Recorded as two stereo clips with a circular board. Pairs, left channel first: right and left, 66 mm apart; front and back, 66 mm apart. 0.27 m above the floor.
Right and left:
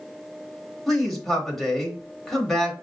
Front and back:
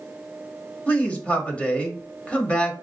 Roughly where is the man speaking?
Ahead.